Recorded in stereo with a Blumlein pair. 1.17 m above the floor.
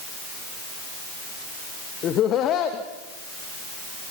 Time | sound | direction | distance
2.0 | laughter | 30° left | 1.5 m